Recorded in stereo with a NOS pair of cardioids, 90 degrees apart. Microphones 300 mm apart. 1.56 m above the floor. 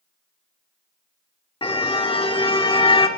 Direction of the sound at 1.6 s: 20° left.